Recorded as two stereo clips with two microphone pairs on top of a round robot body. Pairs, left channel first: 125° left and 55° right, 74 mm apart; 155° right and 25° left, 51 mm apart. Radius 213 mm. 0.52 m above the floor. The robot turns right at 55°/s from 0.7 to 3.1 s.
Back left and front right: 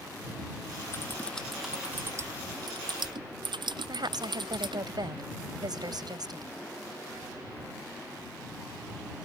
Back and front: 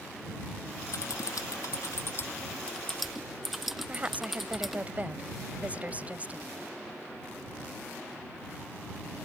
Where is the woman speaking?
35° right.